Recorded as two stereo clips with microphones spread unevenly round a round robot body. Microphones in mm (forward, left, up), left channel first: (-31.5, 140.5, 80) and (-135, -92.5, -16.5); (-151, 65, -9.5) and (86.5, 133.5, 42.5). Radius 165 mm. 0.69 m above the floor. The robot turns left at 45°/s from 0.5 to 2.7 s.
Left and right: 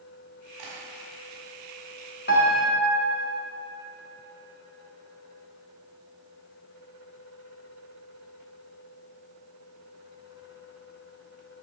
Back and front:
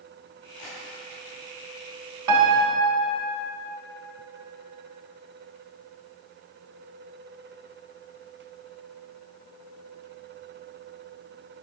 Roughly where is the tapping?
Right.